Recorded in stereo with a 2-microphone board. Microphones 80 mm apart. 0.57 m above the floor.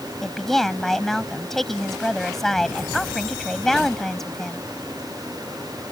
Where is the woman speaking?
5° left (ahead or behind).